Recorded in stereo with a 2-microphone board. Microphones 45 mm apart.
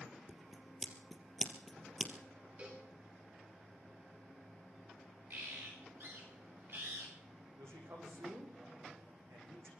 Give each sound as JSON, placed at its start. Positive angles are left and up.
{"t": 0.3, "sound": "scissors", "side_deg": 0, "distance_m": 3.0}
{"t": 2.6, "sound": "a cowbell", "side_deg": -40, "distance_m": 9.0}
{"t": 5.3, "sound": "a bird", "side_deg": -55, "distance_m": 8.5}
{"t": 7.6, "sound": "a man speaking", "side_deg": -75, "distance_m": 7.5}